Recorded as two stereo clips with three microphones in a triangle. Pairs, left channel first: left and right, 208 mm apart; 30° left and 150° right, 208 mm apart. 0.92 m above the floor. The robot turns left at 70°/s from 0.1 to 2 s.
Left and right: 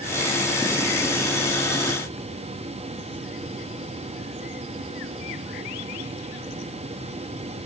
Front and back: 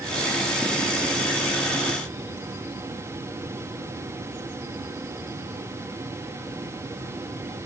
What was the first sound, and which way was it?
Only background noise.